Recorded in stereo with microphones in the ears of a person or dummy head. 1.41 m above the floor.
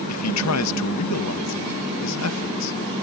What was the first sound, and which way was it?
A man speaking, 80° left.